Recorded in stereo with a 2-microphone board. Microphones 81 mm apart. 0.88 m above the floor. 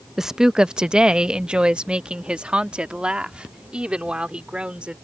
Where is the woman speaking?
5° right (ahead or behind); by 5.0 s 15° right (ahead or behind).